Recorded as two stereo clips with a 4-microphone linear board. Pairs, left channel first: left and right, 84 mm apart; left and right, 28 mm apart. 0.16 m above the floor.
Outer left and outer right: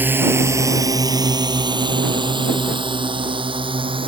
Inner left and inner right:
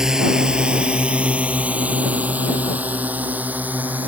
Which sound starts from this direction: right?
A drone, at 0.0 s.